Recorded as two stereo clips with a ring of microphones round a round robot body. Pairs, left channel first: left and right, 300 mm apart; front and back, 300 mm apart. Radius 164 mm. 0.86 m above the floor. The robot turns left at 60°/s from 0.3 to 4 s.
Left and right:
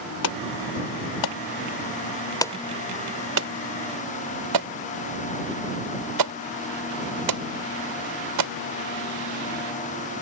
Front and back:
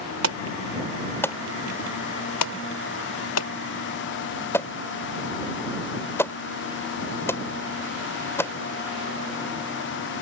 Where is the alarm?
140° left; by 8.5 s 85° right.